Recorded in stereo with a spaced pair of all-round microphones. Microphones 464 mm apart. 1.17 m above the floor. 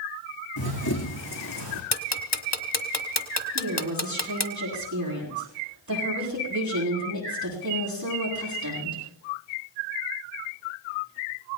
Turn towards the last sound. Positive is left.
turn(degrees=-40)  # may be behind; listen again after turning